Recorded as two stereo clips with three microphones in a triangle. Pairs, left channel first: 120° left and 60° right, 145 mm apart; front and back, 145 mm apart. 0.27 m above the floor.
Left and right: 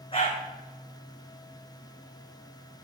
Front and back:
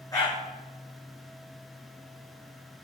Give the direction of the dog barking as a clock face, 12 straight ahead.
10 o'clock.